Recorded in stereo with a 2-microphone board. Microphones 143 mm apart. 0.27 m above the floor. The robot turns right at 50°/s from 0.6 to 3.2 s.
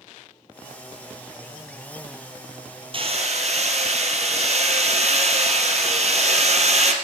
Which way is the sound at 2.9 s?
40° right (ahead or behind).